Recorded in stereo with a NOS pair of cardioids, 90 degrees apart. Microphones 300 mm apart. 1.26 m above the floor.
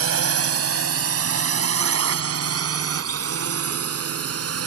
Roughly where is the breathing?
No breathing in this recording.